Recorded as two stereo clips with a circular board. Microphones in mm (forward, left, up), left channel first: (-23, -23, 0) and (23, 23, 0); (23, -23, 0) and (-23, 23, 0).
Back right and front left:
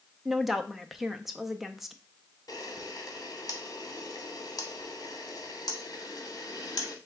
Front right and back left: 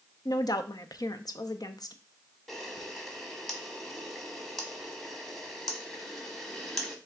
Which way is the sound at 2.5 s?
125° right.